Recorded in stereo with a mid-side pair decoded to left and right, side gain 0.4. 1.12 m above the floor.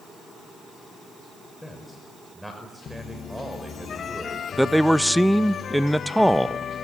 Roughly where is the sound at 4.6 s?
Ahead.